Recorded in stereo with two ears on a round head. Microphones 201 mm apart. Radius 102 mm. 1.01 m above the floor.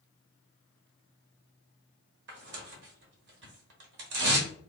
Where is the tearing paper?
50° right (ahead or behind), 1.2 m.